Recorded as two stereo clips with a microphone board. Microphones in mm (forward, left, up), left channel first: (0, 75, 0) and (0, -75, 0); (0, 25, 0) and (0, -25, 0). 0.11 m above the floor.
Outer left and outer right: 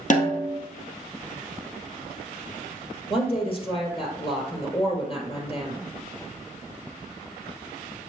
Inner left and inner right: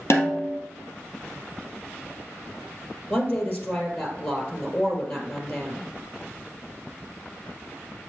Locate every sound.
0.1 s a snare drum: 60° left (ahead or behind), 1.7 m
3.1 s a woman speaking: 40° left (ahead or behind), 2.5 m